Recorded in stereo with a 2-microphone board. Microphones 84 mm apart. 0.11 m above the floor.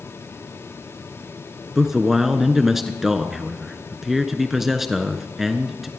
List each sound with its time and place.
1.8 s a man speaking: 5° right (ahead or behind), 1.1 m